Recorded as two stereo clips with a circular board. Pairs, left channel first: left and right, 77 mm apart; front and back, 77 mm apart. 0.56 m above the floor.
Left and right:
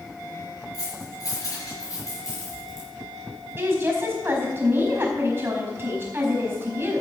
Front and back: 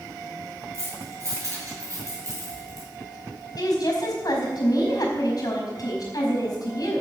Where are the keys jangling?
130° left, 6 m; by 2.9 s 140° left, 5 m.